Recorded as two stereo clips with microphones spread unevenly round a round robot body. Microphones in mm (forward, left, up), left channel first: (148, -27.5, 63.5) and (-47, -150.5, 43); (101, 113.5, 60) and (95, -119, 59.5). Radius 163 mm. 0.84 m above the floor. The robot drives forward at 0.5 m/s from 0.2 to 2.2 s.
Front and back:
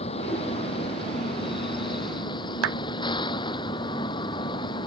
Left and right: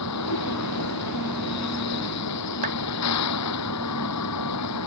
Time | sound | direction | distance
0.0 | a vehicle | 105° left | ?
2.6 | a clap | 155° right | ?